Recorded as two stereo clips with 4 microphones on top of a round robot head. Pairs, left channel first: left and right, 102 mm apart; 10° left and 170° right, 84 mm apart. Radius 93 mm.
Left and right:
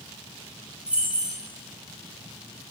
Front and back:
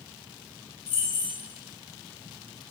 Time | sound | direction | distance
0.9 | keys jangling | 10° right | 2.5 m